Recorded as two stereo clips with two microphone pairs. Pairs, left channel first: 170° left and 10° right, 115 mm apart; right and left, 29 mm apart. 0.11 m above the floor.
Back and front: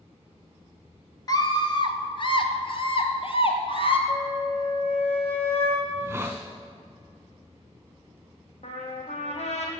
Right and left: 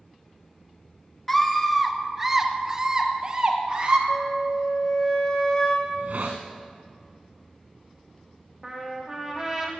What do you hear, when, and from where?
1.3 s a scream: 165° right, 1.3 m; by 4.0 s 140° left, 2 m
4.1 s a flute: 155° right, 3 m
5.8 s a hiss: 65° left, 2.5 m
8.6 s a trumpet: 160° left, 2 m